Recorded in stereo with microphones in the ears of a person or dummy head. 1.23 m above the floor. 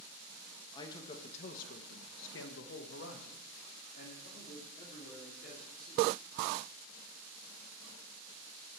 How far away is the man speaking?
About 2.0 m.